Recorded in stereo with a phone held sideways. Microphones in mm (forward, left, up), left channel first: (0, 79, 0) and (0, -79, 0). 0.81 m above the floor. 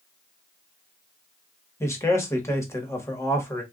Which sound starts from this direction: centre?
A man speaking, at 1.8 s.